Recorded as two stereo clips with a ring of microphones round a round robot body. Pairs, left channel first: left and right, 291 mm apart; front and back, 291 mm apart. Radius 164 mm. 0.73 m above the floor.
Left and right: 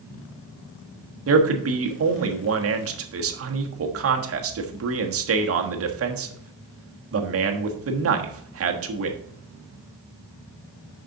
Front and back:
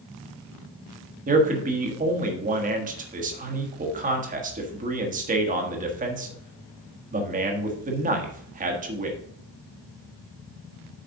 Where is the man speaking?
120° right, 1.4 m.